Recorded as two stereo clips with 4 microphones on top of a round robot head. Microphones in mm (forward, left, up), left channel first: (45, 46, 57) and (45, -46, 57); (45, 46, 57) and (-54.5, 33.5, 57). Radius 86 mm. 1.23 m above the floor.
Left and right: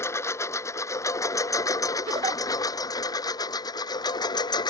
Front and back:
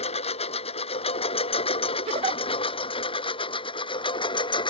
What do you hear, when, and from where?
0.0 s a lawn mower: 25° left; by 4.7 s 50° left
2.1 s a giggle: 135° right